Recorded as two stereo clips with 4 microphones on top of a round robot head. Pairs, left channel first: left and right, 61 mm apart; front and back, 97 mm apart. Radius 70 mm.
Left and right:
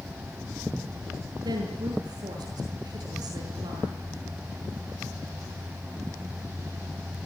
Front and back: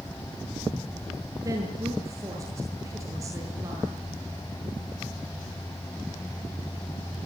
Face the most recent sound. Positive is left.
turn(degrees=-115)